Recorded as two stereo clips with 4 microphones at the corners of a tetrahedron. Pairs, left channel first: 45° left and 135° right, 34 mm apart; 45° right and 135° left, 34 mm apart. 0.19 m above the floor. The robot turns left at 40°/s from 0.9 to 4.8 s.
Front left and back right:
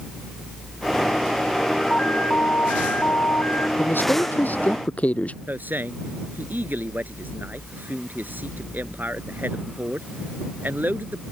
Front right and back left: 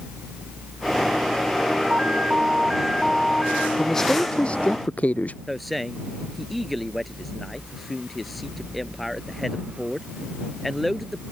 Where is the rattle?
I don't hear a rattle.